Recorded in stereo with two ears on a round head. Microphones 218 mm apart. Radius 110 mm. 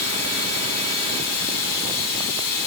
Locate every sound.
0.0 s running water: 85° left, 4 m